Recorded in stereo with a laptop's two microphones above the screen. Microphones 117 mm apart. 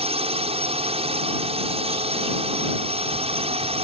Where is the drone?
60° right (ahead or behind).